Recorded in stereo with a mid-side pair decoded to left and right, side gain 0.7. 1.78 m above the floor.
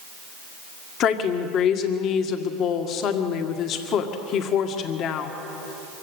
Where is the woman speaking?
50° left, 1.9 m.